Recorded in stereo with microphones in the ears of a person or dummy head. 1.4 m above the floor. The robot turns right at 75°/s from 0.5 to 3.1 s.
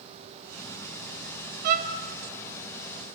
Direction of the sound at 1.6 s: 50° right (ahead or behind).